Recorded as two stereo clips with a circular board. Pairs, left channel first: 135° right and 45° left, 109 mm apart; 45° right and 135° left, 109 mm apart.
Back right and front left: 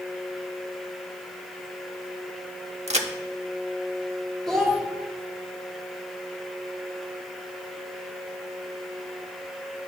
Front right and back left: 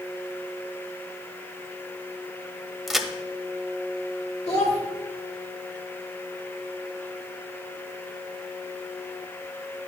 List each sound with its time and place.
2.9 s a crack: 45° left, 0.6 m
4.5 s a child speaking: 50° right, 1.5 m